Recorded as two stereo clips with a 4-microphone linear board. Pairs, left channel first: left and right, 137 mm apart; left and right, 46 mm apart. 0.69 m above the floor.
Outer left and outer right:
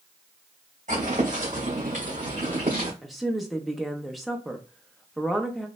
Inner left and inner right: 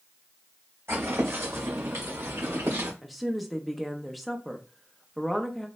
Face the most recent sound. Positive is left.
turn(degrees=0)  # may be behind; listen again after turning